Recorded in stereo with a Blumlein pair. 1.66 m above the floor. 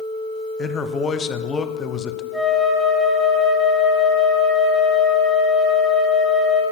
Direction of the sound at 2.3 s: 10° right.